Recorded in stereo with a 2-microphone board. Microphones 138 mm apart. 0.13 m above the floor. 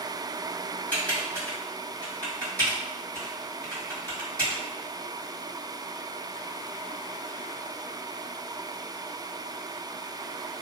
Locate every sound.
0.9 s typing on a keyboard: 10° left (ahead or behind), 2.0 m